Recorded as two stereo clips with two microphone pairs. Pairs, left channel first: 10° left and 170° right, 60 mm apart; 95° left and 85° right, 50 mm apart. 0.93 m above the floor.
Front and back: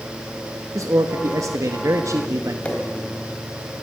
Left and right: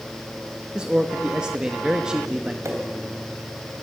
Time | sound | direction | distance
0.8 | a man speaking | 160° right | 1.5 m
2.6 | a pop | 60° right | 3.5 m